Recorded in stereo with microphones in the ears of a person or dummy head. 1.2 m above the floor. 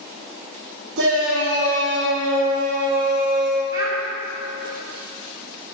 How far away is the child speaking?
About 2.5 m.